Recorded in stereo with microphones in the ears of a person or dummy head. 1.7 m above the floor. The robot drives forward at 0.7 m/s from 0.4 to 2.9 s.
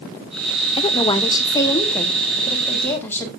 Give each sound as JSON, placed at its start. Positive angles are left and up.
{"t": 0.8, "sound": "a woman speaking", "side_deg": 30, "distance_m": 0.8}